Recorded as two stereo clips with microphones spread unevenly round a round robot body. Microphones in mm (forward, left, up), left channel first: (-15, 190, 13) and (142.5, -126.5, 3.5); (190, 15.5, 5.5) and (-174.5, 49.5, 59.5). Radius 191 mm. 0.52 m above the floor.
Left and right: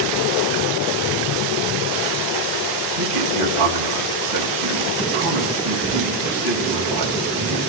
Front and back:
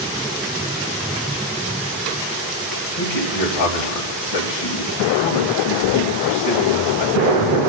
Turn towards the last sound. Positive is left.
turn(degrees=-40)